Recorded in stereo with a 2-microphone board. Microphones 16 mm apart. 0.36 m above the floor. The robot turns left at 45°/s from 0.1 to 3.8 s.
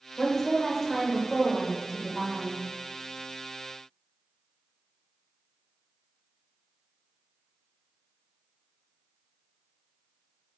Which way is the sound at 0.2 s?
65° left.